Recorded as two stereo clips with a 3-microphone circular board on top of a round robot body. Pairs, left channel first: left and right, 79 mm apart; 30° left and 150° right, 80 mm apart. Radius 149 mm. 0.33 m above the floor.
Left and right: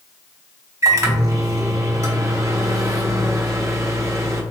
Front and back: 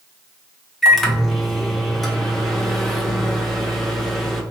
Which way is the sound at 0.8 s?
55° right.